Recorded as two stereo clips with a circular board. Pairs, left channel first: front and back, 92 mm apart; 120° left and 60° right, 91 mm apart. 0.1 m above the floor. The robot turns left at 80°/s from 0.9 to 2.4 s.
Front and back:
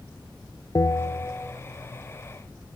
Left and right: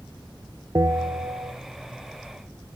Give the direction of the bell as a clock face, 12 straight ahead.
1 o'clock.